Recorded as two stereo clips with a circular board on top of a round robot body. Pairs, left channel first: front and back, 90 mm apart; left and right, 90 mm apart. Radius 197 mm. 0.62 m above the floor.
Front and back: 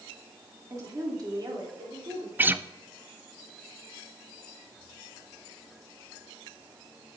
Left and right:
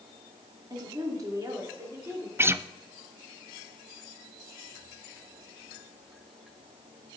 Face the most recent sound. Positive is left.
turn(degrees=-130)